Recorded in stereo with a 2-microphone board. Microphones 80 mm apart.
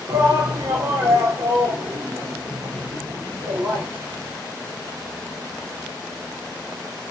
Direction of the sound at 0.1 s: 45° right (ahead or behind).